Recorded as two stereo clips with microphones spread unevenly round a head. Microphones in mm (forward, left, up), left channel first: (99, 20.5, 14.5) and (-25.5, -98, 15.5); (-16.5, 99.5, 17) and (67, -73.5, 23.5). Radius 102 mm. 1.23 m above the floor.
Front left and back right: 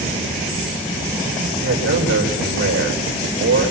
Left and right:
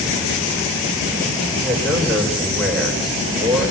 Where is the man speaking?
150° right, 5 m.